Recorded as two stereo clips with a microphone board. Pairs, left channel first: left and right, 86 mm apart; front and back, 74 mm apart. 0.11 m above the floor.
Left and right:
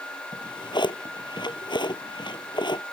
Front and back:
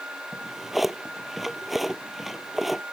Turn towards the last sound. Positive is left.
turn(degrees=90)